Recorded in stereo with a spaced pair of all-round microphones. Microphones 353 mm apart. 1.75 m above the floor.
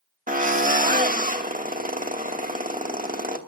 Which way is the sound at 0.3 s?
25° right (ahead or behind).